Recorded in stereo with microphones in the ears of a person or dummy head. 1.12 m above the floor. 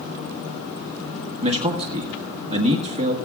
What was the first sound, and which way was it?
A man speaking, 30° right (ahead or behind).